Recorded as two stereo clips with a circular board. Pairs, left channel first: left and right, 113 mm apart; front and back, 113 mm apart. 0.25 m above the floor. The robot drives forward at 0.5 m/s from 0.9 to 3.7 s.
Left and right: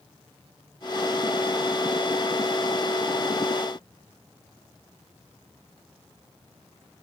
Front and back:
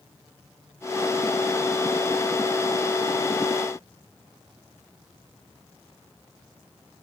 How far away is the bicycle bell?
I don't hear a bicycle bell.